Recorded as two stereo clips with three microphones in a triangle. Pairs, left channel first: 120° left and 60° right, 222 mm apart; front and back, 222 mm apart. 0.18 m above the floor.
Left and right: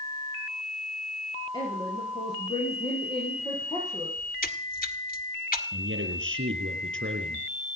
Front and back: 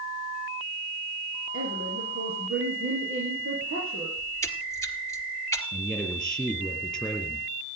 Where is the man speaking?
85° right, 4 m.